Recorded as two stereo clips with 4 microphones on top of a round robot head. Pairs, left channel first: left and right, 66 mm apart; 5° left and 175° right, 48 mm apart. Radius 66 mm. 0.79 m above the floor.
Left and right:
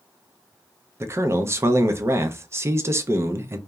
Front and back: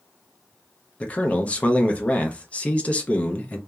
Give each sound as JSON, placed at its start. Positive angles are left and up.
{"t": 1.0, "sound": "a man speaking", "azimuth_deg": -50, "distance_m": 0.5}